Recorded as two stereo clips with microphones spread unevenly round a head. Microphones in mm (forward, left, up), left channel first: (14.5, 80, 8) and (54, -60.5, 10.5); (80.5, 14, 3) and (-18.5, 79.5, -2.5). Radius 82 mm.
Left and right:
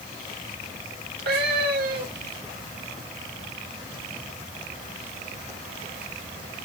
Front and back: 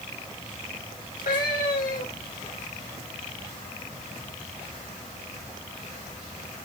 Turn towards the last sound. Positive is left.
turn(degrees=-65)